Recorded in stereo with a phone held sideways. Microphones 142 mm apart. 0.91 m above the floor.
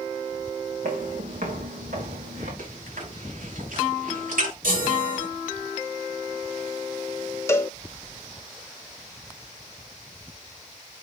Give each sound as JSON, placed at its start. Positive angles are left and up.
{"t": 0.8, "sound": "footsteps", "side_deg": -70, "distance_m": 3.0}
{"t": 2.6, "sound": "chewing", "side_deg": -90, "distance_m": 5.5}
{"t": 4.6, "sound": "a chime", "side_deg": -85, "distance_m": 6.5}
{"t": 7.5, "sound": "a cowbell", "side_deg": 20, "distance_m": 0.8}